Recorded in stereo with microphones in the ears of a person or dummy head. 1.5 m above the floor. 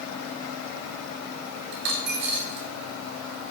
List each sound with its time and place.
1.7 s a dropped coin: 45° right (ahead or behind), 1.0 m